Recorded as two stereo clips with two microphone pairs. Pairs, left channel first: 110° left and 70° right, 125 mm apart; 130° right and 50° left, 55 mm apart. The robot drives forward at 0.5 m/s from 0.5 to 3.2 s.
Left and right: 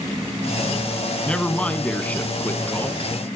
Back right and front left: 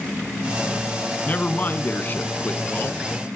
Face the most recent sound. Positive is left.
turn(degrees=-175)